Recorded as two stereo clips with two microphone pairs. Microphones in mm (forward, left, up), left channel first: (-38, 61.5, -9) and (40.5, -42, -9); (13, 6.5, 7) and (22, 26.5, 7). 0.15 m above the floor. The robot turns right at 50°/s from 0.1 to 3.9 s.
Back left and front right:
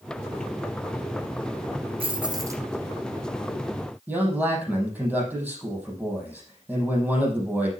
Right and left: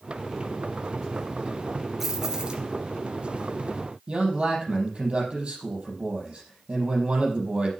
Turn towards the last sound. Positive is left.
turn(degrees=25)